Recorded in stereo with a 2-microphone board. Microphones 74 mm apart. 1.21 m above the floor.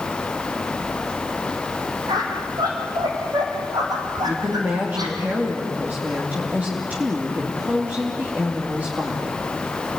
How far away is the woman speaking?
About 2.5 m.